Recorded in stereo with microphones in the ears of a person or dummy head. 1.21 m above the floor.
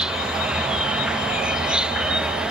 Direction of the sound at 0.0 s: 5° right (ahead or behind).